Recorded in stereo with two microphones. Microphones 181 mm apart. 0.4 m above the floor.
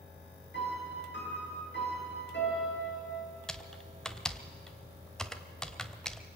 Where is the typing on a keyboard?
5° left (ahead or behind), 1.3 m.